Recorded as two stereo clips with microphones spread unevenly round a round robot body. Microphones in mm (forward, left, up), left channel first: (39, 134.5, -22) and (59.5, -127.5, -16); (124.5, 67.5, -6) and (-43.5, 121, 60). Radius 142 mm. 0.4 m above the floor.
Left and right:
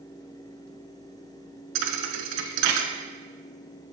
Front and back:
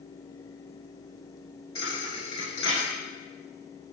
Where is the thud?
100° right, 0.7 m.